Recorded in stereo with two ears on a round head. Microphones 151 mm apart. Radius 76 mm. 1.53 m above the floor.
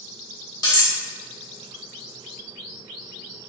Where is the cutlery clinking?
25° left (ahead or behind), 0.8 m.